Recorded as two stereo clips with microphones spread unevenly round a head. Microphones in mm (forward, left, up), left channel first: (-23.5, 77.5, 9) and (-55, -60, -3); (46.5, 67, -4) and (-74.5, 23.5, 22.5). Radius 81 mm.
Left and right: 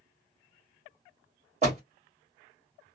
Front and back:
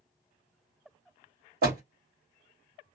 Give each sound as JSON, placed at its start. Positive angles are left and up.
{"t": 1.6, "sound": "a door slam", "azimuth_deg": -145, "distance_m": 1.5}